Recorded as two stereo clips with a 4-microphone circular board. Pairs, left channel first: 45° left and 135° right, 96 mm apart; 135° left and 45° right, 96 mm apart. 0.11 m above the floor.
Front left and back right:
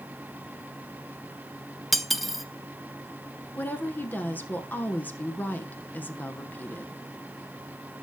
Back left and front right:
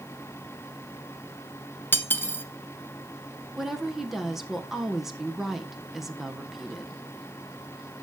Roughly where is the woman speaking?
Ahead left.